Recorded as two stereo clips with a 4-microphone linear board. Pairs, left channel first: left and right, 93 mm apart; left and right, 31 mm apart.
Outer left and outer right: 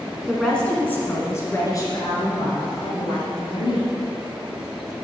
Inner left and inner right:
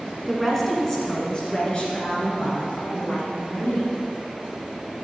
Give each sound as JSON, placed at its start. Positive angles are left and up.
{"t": 0.3, "sound": "a woman speaking", "side_deg": 0, "distance_m": 1.5}